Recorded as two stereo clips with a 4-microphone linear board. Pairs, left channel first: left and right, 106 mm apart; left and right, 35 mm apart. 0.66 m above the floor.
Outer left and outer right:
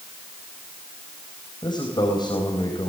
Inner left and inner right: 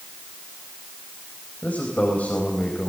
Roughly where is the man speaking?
Left.